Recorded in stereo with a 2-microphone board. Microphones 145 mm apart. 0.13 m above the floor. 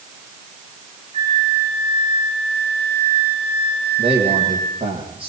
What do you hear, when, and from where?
1.1 s a flute: 40° right (ahead or behind), 9.5 m
4.0 s a man speaking: 40° right (ahead or behind), 7 m